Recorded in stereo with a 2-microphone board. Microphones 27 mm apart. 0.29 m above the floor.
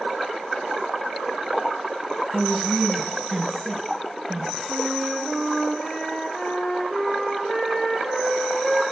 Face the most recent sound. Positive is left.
turn(degrees=25)  # may be behind; listen again after turning